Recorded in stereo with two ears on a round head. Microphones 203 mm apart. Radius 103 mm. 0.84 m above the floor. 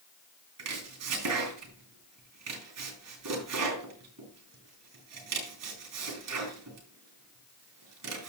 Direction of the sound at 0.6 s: 85° right.